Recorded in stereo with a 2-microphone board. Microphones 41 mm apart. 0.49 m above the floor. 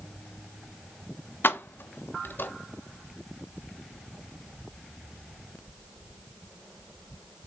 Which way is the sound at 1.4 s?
65° left (ahead or behind).